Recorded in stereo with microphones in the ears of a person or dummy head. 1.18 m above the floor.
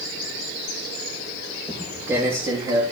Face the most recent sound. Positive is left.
turn(degrees=-30)  # may be behind; listen again after turning